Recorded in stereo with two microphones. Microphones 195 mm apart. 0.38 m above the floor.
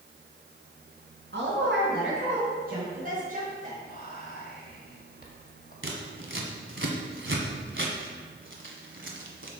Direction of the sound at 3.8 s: 50° left (ahead or behind).